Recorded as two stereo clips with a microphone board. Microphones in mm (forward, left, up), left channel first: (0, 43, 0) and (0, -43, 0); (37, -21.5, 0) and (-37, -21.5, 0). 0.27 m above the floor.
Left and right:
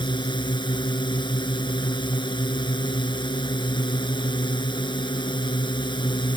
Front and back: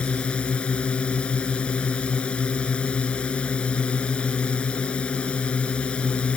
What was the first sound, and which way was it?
A drone, 75° left.